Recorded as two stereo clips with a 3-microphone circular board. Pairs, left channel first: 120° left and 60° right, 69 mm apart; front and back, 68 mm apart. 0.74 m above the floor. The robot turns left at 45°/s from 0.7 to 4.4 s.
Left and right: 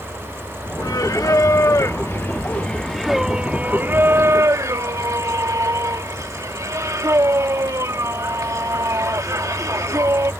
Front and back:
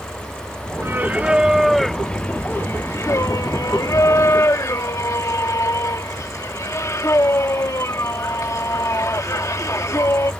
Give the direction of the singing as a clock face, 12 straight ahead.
8 o'clock.